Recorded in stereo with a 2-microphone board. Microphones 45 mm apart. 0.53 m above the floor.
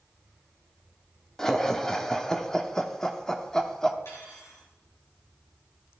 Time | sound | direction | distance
1.4 | laughter | 15° left (ahead or behind) | 1.0 m
4.0 | cutlery clinking | 80° left | 5.5 m